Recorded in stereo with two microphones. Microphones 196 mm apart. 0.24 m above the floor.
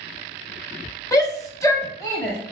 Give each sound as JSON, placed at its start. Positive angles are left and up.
{"t": 1.1, "sound": "a shout", "side_deg": 20, "distance_m": 1.2}